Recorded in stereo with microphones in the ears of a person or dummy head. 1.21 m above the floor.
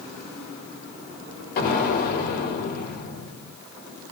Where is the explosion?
50° left (ahead or behind), 1.2 m.